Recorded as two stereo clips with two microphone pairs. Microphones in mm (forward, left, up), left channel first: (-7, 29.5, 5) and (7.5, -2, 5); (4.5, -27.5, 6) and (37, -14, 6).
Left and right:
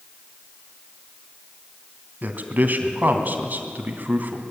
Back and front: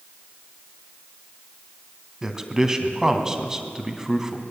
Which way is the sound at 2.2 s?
50° right.